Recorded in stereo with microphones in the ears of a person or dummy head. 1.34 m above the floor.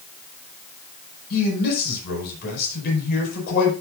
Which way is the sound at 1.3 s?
60° left (ahead or behind).